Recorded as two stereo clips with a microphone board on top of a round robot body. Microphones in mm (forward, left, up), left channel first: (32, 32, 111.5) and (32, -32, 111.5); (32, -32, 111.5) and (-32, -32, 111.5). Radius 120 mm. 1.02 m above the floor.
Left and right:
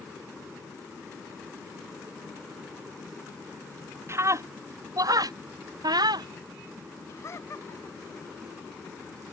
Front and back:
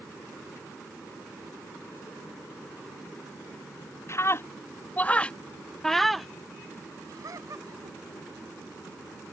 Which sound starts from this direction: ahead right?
A scream, at 4.1 s.